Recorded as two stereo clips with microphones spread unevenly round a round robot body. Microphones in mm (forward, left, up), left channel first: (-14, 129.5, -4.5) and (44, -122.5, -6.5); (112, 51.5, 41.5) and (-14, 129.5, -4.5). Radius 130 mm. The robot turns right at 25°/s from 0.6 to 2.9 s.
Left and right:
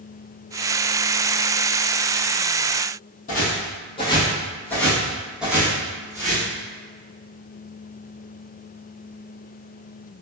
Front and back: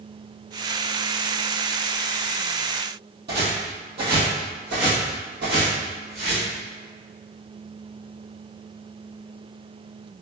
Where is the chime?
No chime in this recording.